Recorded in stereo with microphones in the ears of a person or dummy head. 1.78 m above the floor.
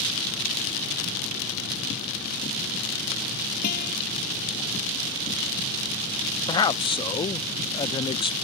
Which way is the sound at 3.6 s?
50° left (ahead or behind).